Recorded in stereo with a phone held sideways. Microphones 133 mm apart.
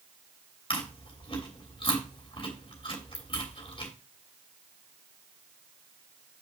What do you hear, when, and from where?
0.7 s chewing: 40° left (ahead or behind), 3 m